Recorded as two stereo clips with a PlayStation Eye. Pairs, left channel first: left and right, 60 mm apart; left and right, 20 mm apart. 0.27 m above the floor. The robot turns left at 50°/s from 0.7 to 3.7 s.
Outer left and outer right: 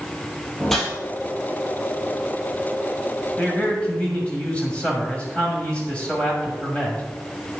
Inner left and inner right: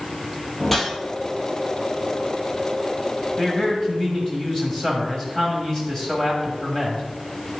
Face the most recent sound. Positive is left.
turn(degrees=20)  # may be behind; listen again after turning